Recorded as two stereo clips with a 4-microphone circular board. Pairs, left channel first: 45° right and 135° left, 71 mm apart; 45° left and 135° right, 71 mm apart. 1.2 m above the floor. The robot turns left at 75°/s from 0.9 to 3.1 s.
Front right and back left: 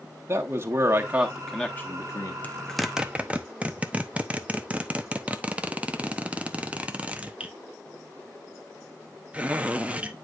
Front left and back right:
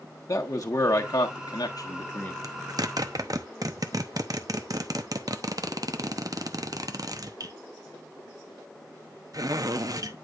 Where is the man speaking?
80° left, 1.4 m; by 2.3 s 25° right, 1.4 m.